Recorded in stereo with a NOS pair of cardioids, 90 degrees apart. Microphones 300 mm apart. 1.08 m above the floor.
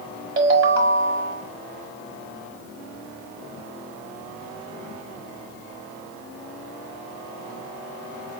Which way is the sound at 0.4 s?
45° right.